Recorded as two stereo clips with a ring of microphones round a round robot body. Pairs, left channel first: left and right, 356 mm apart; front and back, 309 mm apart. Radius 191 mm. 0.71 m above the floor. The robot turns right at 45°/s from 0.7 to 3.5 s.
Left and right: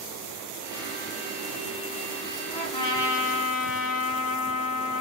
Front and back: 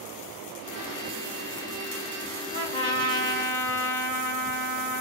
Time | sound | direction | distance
2.5 | a trumpet | 25° left | 1.1 m